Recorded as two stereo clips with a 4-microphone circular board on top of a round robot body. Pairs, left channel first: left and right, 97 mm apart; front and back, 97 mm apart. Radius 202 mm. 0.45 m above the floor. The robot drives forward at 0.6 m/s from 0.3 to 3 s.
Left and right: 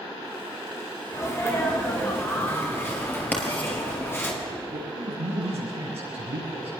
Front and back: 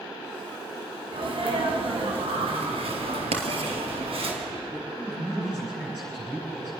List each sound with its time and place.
1.1 s a sneeze: 150° left, 5 m; by 4.3 s 155° left, 6 m
3.3 s writing: 165° left, 3.5 m
4.7 s a man speaking: 95° right, 8.5 m